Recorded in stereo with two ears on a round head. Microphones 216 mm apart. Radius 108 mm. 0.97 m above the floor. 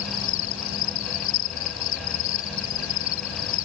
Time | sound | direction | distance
0.0 | an insect | 55° left (ahead or behind) | ?